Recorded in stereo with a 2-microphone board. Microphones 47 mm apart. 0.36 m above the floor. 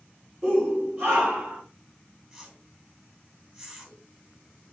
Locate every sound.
0.4 s a shout: 45° right (ahead or behind), 7 m; by 1.6 s 50° right (ahead or behind), 8 m
2.3 s a whoosh: 25° right (ahead or behind), 3.5 m